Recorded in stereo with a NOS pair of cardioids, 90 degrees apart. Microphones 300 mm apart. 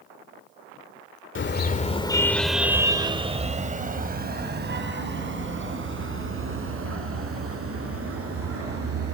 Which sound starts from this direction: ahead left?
A car horn, at 1.4 s.